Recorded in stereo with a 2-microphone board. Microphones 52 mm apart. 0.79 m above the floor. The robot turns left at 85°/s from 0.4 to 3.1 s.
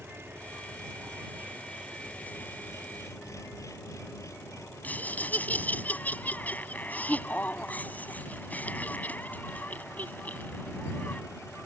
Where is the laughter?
30° left (ahead or behind).